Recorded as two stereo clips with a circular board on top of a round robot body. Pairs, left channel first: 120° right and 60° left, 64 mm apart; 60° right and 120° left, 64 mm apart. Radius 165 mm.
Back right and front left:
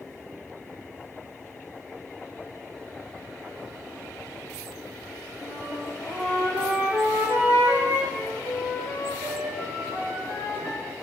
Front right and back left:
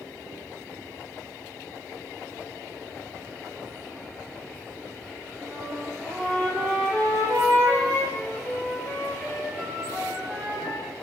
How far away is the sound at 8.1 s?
About 1.6 m.